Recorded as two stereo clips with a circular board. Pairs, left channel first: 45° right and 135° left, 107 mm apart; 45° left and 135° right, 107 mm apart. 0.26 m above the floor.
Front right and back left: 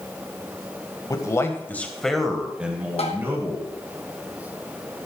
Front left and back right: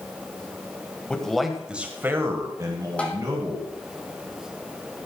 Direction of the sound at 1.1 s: 30° right.